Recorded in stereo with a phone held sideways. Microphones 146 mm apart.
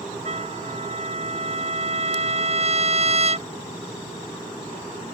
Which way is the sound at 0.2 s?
45° right (ahead or behind).